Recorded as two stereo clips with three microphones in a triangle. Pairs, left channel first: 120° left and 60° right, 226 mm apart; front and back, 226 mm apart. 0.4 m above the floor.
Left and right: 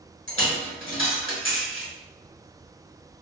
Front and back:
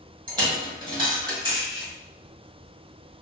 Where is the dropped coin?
115° left, 1.2 m.